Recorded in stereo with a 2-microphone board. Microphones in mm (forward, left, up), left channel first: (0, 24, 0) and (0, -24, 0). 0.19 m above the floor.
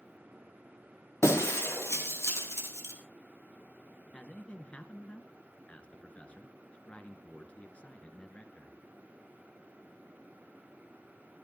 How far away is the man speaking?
About 2.5 m.